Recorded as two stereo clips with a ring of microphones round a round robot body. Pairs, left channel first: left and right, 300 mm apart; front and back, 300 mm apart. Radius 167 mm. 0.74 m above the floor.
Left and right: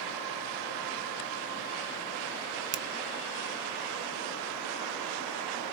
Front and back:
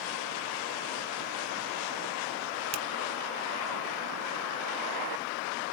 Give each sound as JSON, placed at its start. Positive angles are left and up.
{"t": 2.7, "sound": "a finger snap", "azimuth_deg": -120, "distance_m": 0.5}